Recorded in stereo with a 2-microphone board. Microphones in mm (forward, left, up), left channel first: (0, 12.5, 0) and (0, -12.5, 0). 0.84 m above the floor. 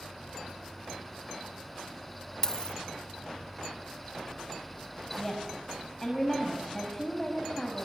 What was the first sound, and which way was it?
A dropped coin, 30° left (ahead or behind).